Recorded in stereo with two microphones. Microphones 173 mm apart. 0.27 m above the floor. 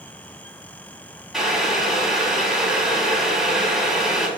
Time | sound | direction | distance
1.3 | boiling | centre (ahead or behind) | 2.5 m